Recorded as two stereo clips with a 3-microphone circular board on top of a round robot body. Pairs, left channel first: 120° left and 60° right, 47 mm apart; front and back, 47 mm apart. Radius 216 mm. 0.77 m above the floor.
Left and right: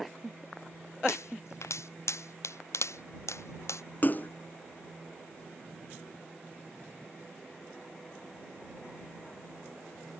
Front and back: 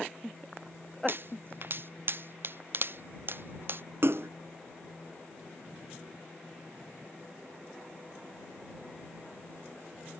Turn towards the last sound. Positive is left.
turn(degrees=160)